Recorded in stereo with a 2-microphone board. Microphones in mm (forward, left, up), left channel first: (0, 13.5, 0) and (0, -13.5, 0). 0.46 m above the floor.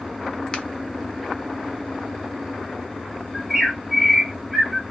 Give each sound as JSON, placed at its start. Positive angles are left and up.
{"t": 0.5, "sound": "a finger snap", "side_deg": 35, "distance_m": 0.9}
{"t": 3.3, "sound": "a bird", "side_deg": 5, "distance_m": 2.5}